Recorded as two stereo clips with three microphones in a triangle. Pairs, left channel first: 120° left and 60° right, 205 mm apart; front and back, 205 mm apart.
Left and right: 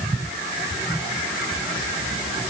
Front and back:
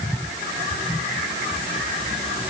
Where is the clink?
No clink in this recording.